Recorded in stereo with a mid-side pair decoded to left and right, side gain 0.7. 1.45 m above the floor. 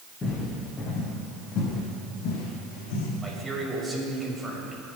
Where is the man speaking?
10° right, 6 m.